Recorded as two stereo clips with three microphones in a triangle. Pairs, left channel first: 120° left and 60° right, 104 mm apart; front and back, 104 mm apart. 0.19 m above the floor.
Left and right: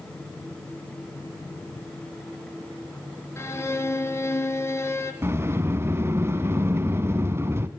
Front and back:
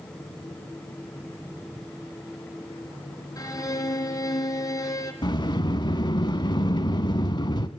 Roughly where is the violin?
Ahead left.